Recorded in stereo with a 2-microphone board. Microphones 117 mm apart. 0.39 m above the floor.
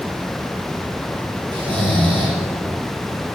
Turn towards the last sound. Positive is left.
turn(degrees=-45)  # may be behind; listen again after turning